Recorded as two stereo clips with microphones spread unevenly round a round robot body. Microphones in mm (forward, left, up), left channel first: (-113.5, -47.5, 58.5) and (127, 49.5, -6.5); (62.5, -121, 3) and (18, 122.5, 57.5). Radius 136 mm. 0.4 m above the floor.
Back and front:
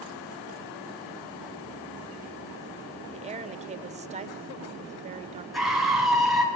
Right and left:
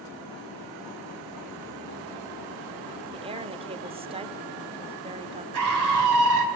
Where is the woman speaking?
30° left, 1.0 m.